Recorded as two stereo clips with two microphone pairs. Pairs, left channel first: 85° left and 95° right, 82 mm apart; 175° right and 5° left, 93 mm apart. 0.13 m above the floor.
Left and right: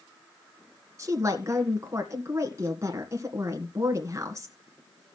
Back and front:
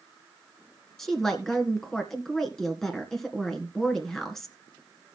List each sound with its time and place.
1.0 s a woman speaking: 90° right, 1.9 m